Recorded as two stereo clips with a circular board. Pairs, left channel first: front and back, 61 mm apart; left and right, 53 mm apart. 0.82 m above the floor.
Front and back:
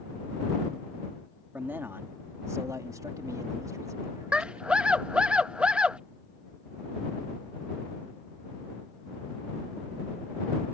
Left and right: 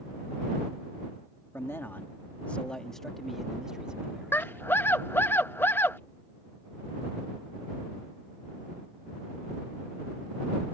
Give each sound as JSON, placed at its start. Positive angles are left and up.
{"t": 1.5, "sound": "a man speaking", "azimuth_deg": 125}
{"t": 4.3, "sound": "a scream", "azimuth_deg": 115}